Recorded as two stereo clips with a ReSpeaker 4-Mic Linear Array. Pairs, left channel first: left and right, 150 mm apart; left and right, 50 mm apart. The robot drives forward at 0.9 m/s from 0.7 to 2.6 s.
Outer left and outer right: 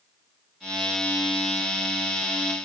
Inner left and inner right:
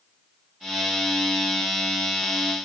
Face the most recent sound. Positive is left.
No sound to turn to.